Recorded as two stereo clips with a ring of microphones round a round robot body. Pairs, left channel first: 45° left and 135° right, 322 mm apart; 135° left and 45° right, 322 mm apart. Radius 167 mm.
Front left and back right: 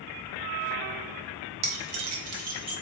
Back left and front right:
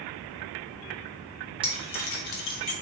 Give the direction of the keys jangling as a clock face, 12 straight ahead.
4 o'clock.